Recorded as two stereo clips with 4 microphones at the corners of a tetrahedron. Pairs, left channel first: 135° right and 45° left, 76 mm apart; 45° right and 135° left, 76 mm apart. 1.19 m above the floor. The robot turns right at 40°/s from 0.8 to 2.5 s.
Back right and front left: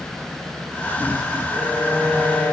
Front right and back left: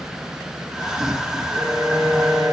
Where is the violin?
125° left, 3 m; by 2.5 s 165° left, 3 m.